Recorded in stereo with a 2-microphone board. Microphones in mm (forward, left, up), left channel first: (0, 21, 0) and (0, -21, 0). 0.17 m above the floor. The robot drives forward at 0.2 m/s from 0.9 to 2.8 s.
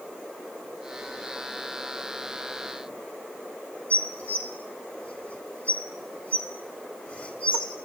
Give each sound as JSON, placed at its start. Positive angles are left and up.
{"t": 3.9, "sound": "dishes clattering", "side_deg": 30, "distance_m": 0.9}